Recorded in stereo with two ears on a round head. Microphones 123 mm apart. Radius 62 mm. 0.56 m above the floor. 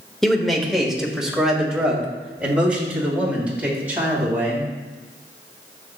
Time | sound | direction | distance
0.2 | a man speaking | 5° left (ahead or behind) | 1.3 m